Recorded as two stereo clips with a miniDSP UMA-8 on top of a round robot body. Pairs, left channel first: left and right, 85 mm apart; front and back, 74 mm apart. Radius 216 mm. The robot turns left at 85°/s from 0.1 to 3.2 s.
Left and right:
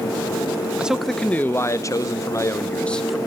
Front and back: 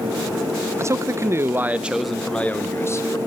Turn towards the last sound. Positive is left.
turn(degrees=-5)